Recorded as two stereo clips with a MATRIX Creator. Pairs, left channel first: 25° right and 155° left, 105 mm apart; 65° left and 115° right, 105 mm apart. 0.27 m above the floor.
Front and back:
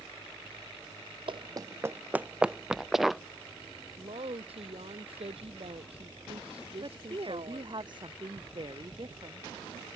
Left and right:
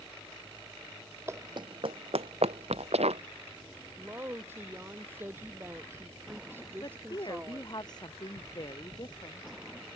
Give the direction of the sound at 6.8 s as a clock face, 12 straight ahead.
8 o'clock.